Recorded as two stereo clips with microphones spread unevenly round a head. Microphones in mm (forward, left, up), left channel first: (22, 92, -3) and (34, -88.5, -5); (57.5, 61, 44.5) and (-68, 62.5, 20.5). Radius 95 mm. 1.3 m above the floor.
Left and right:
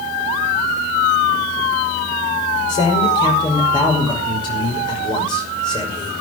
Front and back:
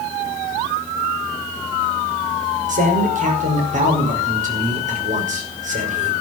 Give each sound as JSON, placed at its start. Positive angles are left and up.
{"t": 2.7, "sound": "a man speaking", "azimuth_deg": 165, "distance_m": 5.5}